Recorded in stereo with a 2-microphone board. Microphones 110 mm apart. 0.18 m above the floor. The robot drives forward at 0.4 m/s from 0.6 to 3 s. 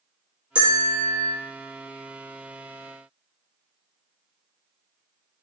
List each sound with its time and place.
0.6 s a bell: 50° right (ahead or behind), 1.6 m